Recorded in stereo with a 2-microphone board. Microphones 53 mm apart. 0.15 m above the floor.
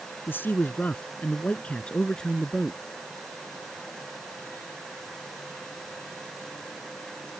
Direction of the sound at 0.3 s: 40° left (ahead or behind).